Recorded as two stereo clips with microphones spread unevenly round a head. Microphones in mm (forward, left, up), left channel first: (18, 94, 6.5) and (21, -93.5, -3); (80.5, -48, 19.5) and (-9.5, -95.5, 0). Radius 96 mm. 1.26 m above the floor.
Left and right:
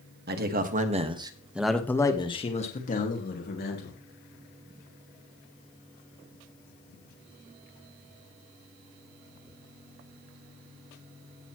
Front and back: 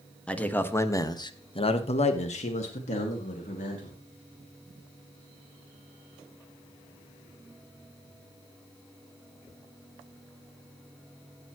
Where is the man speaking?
50° right, 2.0 m; by 4.0 s 55° left, 3 m.